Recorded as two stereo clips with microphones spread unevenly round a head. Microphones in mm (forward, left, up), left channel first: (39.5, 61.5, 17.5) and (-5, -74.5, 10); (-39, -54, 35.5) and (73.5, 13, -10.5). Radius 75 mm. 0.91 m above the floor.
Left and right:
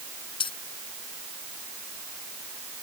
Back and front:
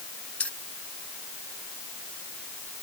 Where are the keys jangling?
130° left.